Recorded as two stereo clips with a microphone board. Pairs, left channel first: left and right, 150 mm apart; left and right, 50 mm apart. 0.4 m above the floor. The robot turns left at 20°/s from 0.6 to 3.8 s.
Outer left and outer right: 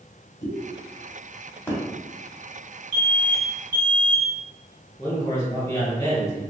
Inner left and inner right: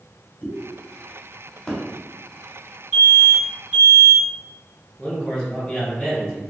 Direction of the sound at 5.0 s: 25° left (ahead or behind).